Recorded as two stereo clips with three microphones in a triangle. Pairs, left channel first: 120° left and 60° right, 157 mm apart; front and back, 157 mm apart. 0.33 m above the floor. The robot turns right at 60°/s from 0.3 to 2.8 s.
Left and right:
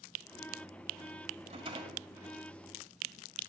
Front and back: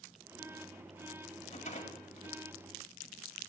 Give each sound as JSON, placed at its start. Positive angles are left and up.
{"t": 1.5, "sound": "a rattle", "azimuth_deg": -30, "distance_m": 1.8}